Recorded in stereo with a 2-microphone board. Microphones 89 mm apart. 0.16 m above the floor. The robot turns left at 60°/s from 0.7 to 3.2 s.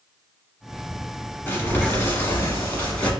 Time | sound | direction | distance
1.5 | crumpling | 25° left (ahead or behind) | 1.2 m